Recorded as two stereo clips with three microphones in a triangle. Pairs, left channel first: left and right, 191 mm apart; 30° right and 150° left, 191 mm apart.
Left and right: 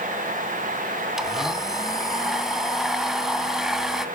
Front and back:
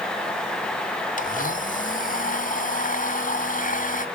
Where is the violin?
I don't hear a violin.